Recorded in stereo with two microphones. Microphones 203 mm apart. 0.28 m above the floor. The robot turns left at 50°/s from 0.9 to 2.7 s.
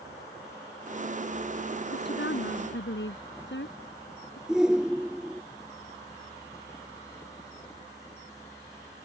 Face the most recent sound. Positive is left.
turn(degrees=-5)  # may be behind; listen again after turning